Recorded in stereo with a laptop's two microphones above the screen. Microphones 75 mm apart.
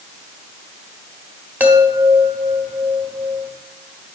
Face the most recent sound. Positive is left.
turn(degrees=-25)  # may be behind; listen again after turning